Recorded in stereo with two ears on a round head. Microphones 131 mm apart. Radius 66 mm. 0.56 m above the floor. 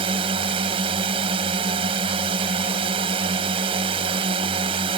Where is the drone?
40° right (ahead or behind).